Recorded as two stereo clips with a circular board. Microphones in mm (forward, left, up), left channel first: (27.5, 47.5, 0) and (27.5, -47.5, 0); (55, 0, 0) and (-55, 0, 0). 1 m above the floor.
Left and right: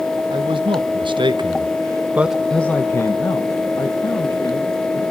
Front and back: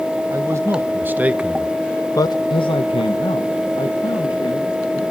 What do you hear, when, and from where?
0.3 s a man speaking: 120° right, 1.5 m; by 5.0 s 45° left, 2.5 m